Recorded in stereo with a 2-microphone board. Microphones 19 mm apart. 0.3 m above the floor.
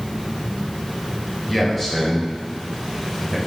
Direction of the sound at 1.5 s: 10° left (ahead or behind).